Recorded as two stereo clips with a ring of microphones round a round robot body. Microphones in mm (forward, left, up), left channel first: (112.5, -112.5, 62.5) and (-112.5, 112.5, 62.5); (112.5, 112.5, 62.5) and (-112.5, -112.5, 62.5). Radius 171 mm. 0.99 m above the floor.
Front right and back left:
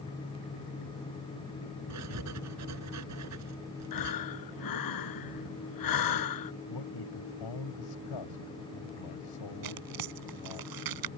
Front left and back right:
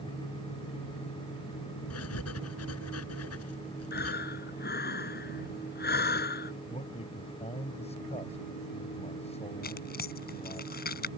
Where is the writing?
95° left.